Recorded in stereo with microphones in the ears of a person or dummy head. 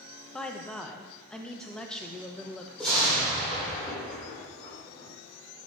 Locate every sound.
0.3 s a woman speaking: 5° left (ahead or behind), 1.1 m
2.8 s an explosion: centre (ahead or behind), 5 m